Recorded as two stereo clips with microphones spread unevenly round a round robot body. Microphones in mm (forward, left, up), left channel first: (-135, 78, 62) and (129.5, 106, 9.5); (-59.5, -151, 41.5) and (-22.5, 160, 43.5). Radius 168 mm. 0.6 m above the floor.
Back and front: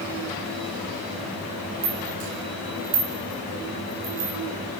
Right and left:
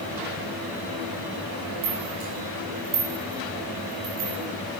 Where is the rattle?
15° left, 4.5 m.